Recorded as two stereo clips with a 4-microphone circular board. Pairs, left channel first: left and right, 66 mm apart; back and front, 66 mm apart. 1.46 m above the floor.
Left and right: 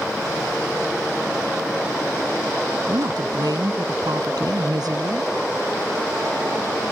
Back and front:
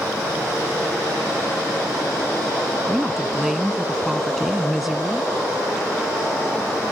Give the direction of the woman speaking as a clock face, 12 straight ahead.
3 o'clock.